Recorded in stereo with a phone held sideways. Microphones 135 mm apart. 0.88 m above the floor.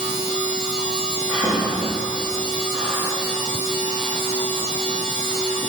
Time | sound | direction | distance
0.0 | a machine running | 65° right (ahead or behind) | 1.2 m
1.3 | breathing | 15° right (ahead or behind) | 2 m